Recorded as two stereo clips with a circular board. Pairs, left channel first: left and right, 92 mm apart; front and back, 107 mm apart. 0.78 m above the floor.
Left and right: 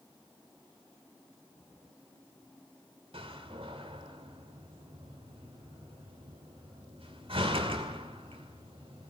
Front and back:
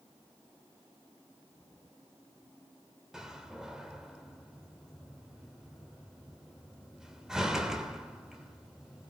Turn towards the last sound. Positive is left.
turn(degrees=-95)